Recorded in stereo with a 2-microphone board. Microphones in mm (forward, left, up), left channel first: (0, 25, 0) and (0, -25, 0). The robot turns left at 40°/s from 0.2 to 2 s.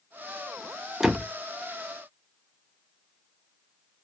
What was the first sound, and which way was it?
A door slam, 10° right (ahead or behind).